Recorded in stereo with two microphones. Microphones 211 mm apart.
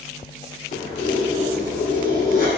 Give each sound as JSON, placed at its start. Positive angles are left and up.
{"t": 0.7, "sound": "keys jangling", "side_deg": 45, "distance_m": 0.9}